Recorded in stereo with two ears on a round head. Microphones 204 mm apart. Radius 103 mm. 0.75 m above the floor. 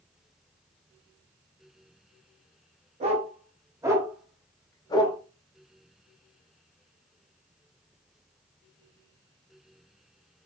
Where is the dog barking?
30° right (ahead or behind), 1.3 m; by 5.2 s 30° left (ahead or behind), 0.9 m.